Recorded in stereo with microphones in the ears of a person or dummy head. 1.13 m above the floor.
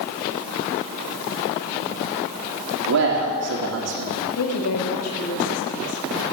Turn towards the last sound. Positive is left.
turn(degrees=85)